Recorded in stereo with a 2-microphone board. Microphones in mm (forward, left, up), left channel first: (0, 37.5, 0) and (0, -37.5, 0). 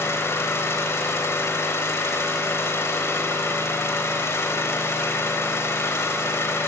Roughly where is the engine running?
Left.